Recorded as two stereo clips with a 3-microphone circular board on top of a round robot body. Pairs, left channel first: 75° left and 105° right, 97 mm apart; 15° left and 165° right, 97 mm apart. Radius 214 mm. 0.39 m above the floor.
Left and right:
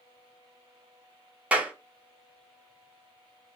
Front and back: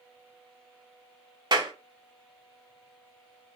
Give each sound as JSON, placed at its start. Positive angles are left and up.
{"t": 1.5, "sound": "a clap", "azimuth_deg": -175, "distance_m": 1.3}